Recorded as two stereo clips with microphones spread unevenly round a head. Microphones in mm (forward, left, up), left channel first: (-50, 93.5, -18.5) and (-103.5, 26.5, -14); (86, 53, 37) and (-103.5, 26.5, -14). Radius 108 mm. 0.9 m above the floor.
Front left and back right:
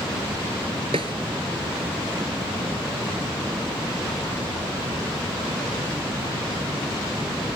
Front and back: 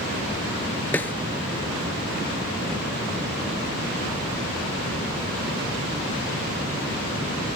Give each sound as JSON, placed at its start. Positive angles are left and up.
{"t": 0.9, "sound": "a snare drum", "azimuth_deg": -75}